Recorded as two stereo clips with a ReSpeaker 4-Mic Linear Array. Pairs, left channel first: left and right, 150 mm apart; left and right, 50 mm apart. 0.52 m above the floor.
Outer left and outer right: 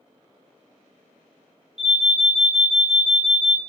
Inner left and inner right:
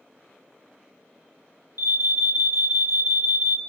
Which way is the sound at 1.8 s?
50° right (ahead or behind).